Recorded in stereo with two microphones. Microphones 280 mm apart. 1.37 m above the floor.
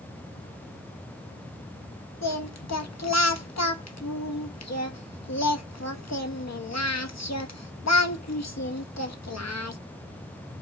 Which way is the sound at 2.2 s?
65° left (ahead or behind).